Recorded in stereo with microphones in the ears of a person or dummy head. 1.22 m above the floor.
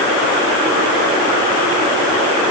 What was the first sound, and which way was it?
Only background noise.